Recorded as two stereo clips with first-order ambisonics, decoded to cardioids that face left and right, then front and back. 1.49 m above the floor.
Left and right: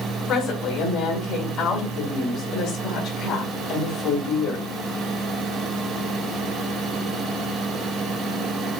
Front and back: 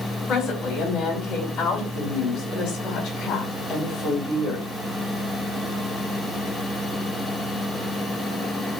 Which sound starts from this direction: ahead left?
A woman speaking, at 0.3 s.